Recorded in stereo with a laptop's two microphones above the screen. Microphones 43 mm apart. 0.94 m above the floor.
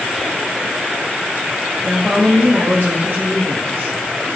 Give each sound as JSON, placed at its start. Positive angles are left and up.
{"t": 1.8, "sound": "a woman speaking", "side_deg": -70, "distance_m": 1.6}